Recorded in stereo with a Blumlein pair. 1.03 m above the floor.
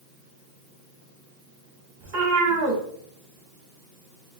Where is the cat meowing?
50° right, 1.5 m.